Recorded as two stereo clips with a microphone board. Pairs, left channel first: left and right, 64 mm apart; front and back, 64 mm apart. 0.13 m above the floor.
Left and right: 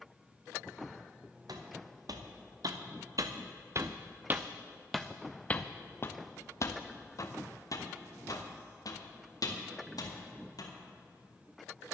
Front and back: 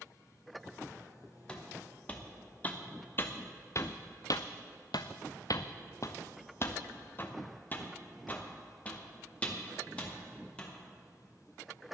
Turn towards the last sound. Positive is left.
turn(degrees=70)